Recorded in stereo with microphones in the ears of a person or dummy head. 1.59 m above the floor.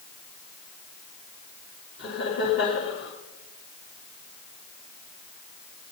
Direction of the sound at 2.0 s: 65° left (ahead or behind).